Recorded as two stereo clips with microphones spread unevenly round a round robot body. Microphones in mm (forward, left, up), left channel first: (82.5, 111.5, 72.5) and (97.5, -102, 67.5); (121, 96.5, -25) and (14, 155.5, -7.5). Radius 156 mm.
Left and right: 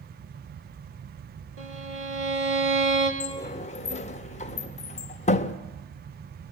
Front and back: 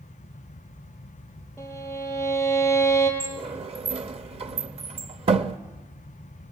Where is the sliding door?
140° left, 0.8 m.